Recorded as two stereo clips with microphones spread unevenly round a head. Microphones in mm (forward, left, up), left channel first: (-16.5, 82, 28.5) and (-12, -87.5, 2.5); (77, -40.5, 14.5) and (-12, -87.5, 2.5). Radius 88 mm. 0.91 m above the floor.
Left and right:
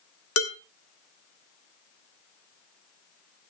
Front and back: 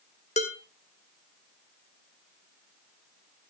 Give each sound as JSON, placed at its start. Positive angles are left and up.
{"t": 0.4, "sound": "dishes clattering", "azimuth_deg": 80, "distance_m": 1.8}